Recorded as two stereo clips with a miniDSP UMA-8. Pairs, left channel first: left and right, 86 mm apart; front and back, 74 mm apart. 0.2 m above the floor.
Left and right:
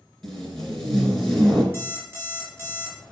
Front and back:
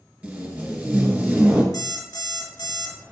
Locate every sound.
0.2 s tape being pulled: 170° left, 1.6 m
1.7 s an alarm clock: 30° right, 1.7 m